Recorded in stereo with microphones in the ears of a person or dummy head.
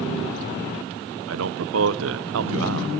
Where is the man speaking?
75° right (ahead or behind), 0.6 m.